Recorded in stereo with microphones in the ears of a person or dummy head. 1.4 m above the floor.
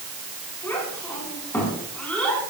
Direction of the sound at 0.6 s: 10° left (ahead or behind).